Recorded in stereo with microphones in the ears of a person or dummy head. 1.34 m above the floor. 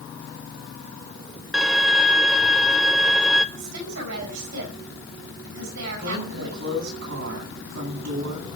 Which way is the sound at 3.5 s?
75° right (ahead or behind).